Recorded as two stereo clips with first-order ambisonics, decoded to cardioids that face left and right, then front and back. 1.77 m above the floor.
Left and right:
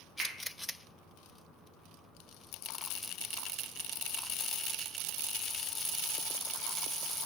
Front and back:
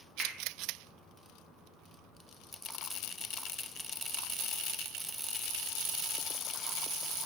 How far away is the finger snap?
About 0.8 m.